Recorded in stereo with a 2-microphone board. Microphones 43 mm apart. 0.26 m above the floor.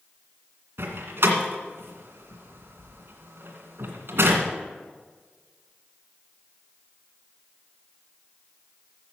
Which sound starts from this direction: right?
A door slam, at 0.8 s.